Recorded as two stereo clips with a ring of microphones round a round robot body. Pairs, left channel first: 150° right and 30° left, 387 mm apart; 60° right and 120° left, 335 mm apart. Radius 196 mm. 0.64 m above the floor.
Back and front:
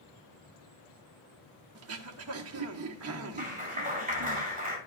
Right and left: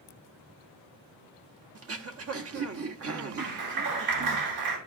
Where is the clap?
100° left, 6 m.